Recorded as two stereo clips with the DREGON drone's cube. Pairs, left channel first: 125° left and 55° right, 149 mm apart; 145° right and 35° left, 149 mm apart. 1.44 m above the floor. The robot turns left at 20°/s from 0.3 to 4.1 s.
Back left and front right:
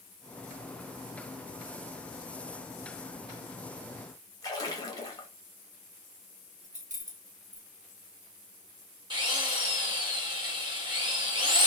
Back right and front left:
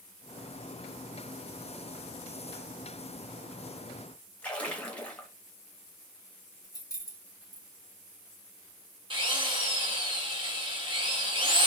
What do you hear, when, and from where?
4.4 s a splash: 145° left, 0.8 m
6.6 s keys jangling: 80° right, 0.8 m
9.1 s a drill: 10° right, 1.1 m